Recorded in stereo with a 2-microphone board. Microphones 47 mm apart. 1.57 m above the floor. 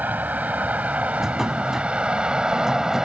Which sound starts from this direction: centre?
A drawer, at 1.2 s.